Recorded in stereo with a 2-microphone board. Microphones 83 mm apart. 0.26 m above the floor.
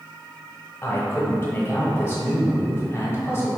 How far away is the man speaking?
About 1.0 m.